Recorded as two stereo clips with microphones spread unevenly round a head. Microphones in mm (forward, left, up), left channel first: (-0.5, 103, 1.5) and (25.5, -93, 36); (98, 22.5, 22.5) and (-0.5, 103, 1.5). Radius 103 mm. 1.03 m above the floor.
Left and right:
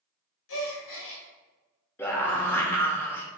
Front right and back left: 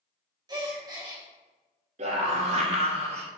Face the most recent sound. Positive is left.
turn(degrees=175)